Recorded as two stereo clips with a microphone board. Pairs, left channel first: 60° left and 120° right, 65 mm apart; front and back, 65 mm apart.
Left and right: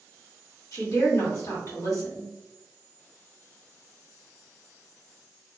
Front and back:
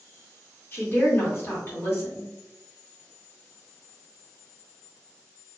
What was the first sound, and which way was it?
A woman speaking, 45° left.